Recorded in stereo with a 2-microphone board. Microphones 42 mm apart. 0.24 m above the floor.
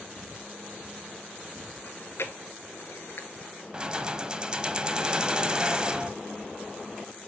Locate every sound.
1.8 s chewing: 75° left (ahead or behind), 0.8 m
3.7 s keys jangling: 20° right (ahead or behind), 0.7 m